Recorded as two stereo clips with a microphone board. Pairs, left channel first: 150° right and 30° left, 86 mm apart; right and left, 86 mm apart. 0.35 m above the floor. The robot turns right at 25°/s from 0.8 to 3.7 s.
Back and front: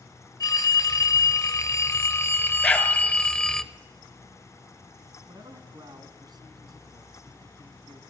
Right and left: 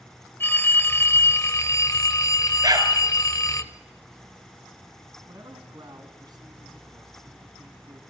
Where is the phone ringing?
140° right, 0.7 m; by 3.6 s 70° right, 0.7 m.